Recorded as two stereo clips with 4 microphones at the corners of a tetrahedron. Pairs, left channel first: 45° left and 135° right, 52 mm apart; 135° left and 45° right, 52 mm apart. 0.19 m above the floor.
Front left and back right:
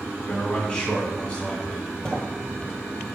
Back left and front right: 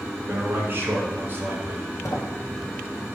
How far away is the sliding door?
About 1.8 m.